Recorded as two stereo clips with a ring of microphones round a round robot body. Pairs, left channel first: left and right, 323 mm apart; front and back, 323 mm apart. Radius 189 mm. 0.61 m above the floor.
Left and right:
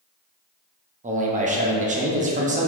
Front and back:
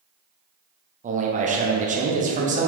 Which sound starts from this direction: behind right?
A man speaking, at 1.0 s.